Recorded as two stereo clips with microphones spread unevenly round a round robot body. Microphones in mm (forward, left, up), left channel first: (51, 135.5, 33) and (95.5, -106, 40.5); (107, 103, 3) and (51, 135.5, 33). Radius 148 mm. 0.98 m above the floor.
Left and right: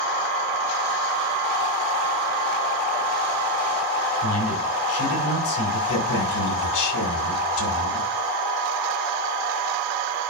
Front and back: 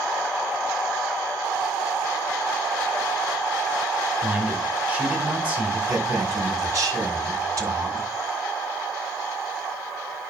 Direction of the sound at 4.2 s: 85° left.